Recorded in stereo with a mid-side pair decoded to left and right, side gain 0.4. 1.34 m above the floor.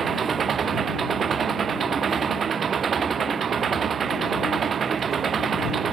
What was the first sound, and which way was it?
An engine running, 55° right.